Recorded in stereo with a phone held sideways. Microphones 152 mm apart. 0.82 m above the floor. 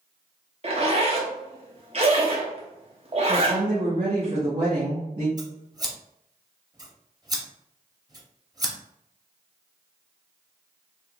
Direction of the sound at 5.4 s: 25° right (ahead or behind).